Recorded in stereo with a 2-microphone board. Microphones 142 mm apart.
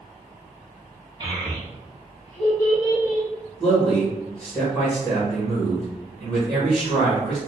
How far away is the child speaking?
About 0.9 m.